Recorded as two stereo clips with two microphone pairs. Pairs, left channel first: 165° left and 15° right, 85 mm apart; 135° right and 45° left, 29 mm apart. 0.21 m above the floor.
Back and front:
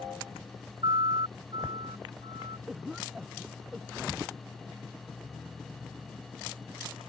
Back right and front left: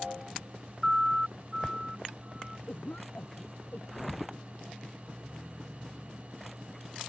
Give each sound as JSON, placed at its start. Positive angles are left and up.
{"t": 0.8, "sound": "a siren", "azimuth_deg": -25}
{"t": 2.7, "sound": "a cough", "azimuth_deg": -100}